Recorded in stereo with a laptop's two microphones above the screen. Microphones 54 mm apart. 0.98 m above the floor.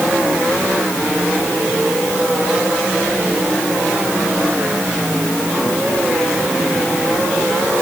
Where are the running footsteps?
I don't hear running footsteps.